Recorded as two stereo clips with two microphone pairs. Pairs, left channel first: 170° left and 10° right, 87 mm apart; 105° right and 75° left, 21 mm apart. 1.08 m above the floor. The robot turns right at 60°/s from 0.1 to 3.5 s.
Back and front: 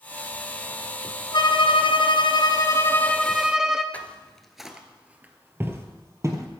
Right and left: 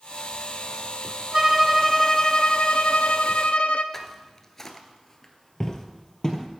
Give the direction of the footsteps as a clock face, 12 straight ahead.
5 o'clock.